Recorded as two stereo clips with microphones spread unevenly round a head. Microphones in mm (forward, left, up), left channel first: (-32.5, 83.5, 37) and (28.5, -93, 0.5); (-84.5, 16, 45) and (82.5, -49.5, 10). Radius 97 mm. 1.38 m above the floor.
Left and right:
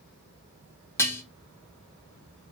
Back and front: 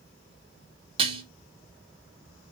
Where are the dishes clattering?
45° left, 0.6 m.